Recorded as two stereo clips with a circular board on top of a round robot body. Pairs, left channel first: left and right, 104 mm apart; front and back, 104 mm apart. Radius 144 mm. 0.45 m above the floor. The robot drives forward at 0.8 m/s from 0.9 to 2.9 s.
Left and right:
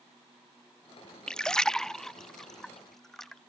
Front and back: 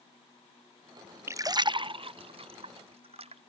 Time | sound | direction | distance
1.3 | a splash | 165° left | ?